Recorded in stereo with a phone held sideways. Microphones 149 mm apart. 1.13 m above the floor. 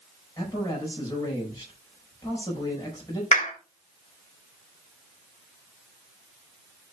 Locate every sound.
0.4 s a man speaking: 20° left (ahead or behind), 5.5 m
3.3 s a clap: 55° left (ahead or behind), 3 m